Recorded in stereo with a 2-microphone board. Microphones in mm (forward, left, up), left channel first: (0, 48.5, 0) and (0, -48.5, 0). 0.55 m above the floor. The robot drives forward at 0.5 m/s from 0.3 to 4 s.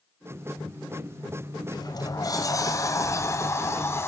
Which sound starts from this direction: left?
A sliding door, at 1.7 s.